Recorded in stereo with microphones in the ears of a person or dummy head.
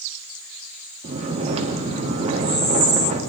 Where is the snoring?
40° right (ahead or behind), 1.2 m.